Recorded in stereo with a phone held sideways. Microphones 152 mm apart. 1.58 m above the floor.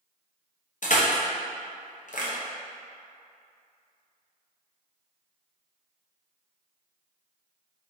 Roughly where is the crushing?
Left.